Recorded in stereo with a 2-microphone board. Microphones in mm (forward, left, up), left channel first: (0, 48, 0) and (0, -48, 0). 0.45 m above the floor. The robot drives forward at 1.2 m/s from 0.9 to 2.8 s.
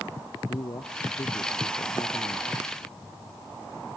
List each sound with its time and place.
0.5 s a man speaking: 45° left (ahead or behind); by 2.5 s 50° left (ahead or behind)